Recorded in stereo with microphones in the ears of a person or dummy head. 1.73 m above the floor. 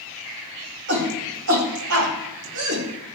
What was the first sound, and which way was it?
A shout, 60° right (ahead or behind).